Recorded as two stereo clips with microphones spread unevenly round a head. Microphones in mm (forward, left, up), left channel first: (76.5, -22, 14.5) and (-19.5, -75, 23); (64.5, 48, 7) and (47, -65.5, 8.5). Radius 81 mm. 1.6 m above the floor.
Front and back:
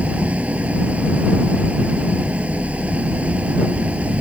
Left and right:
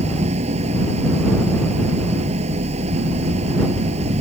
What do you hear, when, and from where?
0.0 s an engine running: 75° right